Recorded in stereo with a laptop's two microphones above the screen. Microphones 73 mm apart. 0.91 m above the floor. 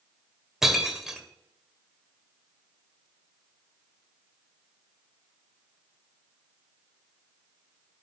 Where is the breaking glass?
5° right (ahead or behind), 1.6 m.